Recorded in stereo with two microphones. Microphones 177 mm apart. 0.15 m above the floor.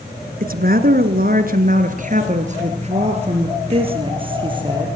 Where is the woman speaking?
55° right (ahead or behind), 2.0 m; by 4.9 s 25° right (ahead or behind), 4 m.